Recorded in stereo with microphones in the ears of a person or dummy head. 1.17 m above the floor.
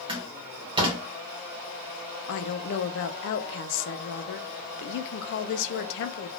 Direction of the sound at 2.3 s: 65° left (ahead or behind).